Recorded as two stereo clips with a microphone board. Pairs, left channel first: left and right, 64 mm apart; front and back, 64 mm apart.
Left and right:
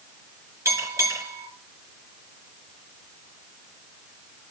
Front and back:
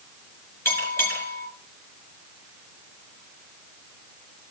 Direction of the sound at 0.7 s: 50° right.